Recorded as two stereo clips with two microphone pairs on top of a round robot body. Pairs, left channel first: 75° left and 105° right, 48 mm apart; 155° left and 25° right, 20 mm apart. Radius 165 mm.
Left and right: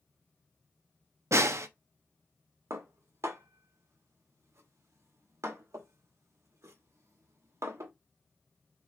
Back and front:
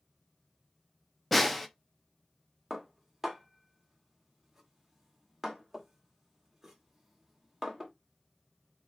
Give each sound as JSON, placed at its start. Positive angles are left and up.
{"t": 1.3, "sound": "a snare drum", "azimuth_deg": -115, "distance_m": 0.6}
{"t": 2.7, "sound": "dishes clattering", "azimuth_deg": -100, "distance_m": 1.2}